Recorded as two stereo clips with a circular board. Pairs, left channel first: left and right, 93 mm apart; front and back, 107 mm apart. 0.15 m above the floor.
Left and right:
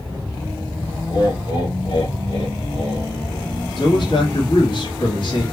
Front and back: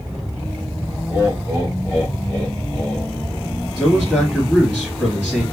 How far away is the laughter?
About 3.5 m.